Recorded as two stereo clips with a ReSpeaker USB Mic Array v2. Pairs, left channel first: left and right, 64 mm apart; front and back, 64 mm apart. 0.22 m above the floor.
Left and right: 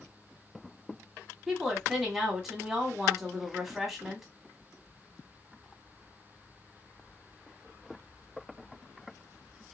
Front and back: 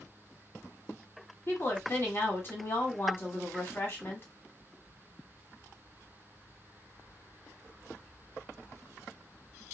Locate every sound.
1.5 s a woman speaking: 10° right, 1.4 m